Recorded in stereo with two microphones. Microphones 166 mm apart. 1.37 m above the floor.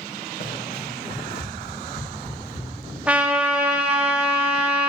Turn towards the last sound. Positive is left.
turn(degrees=-10)  # may be behind; listen again after turning